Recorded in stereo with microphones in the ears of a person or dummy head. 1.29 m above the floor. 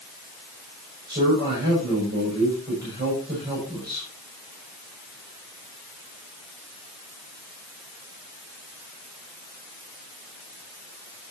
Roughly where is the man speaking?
Right.